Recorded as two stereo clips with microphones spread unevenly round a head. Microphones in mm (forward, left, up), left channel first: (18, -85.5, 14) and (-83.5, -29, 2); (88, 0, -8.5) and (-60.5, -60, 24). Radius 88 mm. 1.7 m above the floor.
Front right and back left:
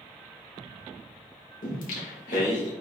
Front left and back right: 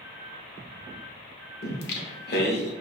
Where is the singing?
Straight ahead, 0.7 m.